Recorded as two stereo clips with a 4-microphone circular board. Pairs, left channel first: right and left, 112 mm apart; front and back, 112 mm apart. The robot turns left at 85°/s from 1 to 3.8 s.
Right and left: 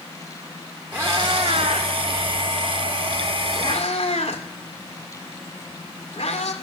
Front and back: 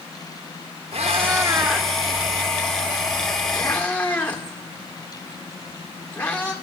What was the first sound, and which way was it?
A cat meowing, 160° left.